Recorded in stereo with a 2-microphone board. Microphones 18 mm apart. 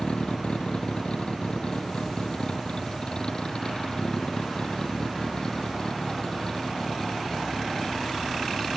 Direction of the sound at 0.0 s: 65° left (ahead or behind).